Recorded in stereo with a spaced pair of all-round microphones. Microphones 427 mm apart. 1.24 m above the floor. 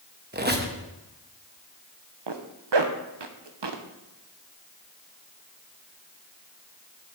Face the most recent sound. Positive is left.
turn(degrees=-70)  # may be behind; listen again after turning